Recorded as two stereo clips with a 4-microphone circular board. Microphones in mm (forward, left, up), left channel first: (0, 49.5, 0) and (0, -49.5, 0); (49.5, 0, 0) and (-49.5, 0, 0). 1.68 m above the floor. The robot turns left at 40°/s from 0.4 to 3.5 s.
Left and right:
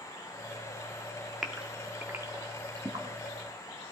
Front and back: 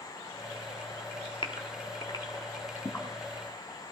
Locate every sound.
1.4 s a gasp: straight ahead, 1.7 m; by 3.0 s 65° right, 1.7 m